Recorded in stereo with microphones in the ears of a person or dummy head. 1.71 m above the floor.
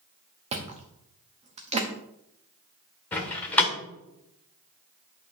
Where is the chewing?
35° right (ahead or behind), 0.9 m.